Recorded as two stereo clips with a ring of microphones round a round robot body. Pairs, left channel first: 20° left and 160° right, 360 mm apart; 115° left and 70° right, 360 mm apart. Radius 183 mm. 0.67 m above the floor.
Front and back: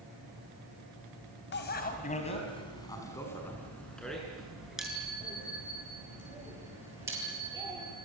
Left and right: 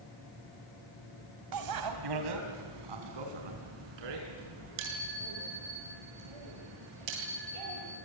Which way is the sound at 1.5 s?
35° right.